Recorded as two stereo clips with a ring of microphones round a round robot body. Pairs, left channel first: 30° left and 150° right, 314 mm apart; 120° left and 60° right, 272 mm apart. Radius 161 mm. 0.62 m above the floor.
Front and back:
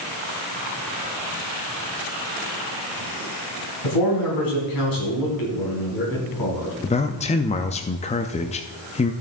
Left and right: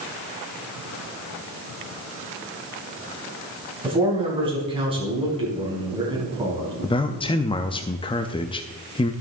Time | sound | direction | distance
3.8 | a man speaking | 10° left | 4.5 m
6.8 | a man speaking | 70° left | 0.5 m